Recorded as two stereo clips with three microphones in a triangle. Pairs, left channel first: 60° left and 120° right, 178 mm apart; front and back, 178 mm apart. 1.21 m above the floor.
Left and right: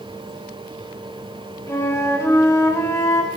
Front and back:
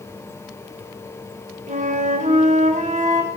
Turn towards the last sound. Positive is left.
turn(degrees=135)